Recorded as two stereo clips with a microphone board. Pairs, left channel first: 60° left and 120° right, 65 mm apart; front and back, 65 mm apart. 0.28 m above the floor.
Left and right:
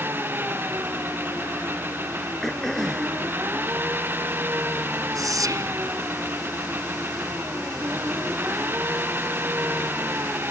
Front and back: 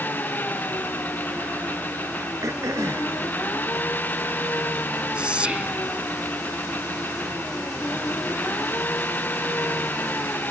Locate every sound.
0.0 s an engine running: 65° right
2.4 s throat clearing: 145° left
5.2 s whispering: 110° right